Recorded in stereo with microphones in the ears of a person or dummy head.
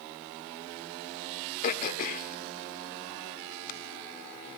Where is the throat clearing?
50° left (ahead or behind), 1.4 m.